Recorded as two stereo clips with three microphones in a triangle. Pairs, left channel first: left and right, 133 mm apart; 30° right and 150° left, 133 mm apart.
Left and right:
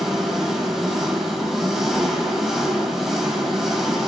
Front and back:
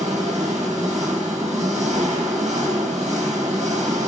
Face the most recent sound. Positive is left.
turn(degrees=180)